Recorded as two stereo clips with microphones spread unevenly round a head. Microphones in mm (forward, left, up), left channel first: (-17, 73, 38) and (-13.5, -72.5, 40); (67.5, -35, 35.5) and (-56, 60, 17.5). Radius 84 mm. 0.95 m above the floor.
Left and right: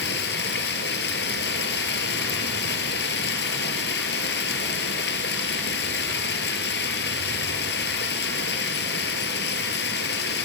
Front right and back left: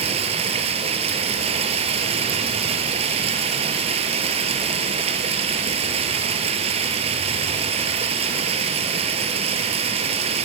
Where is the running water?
90° left, 2.5 m.